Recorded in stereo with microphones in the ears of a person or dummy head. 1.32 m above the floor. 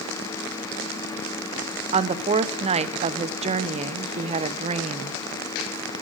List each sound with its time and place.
1.9 s a woman speaking: 35° right (ahead or behind), 0.7 m